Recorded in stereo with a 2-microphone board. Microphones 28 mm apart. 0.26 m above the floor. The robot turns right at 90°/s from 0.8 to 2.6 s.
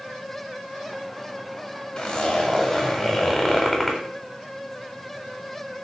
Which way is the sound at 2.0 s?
95° left.